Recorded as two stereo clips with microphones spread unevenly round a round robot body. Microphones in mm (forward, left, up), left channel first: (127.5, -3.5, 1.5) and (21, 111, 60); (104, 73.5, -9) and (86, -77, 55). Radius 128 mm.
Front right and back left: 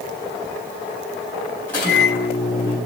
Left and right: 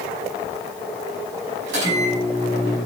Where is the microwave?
130° right, 4 m.